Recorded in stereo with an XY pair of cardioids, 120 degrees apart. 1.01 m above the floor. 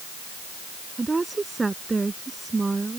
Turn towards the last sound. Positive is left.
turn(degrees=-20)